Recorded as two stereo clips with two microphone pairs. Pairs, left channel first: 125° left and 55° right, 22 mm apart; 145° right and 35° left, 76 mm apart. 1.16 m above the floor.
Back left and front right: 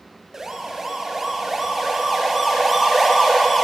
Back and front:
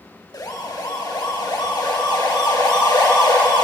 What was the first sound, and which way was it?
A siren, 125° right.